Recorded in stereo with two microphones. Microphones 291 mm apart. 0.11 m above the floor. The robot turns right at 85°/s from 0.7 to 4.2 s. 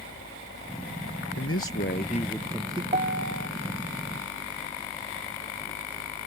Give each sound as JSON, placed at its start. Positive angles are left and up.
{"t": 0.0, "sound": "a helicopter", "side_deg": 40}
{"t": 1.4, "sound": "a man speaking", "azimuth_deg": 80}
{"t": 2.9, "sound": "a piano", "azimuth_deg": -155}